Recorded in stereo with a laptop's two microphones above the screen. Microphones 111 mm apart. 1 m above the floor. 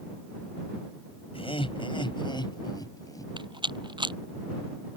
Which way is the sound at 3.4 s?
45° right (ahead or behind).